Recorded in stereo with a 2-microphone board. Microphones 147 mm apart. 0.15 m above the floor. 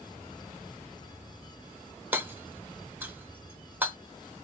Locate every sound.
2.1 s hammering: 15° right (ahead or behind), 0.6 m